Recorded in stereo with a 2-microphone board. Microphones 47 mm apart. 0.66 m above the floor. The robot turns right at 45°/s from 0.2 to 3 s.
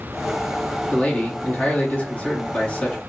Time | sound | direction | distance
0.9 | a man speaking | 50° left | 1.3 m